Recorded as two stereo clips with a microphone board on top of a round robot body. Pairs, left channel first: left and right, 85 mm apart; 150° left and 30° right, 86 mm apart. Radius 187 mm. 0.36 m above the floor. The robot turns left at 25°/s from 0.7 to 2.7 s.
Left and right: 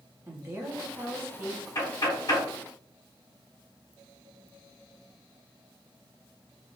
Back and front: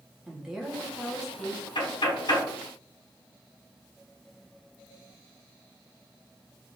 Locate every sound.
0.3 s a woman speaking: 110° right, 1.3 m; by 1.6 s 135° right, 1.3 m
1.8 s knocking: 145° left, 1.7 m; by 2.5 s 125° left, 1.7 m